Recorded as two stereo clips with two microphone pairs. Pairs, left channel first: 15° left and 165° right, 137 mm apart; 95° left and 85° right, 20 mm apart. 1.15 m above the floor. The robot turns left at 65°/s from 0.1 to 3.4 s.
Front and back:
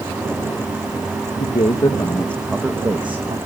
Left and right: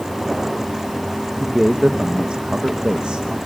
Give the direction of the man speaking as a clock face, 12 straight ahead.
12 o'clock.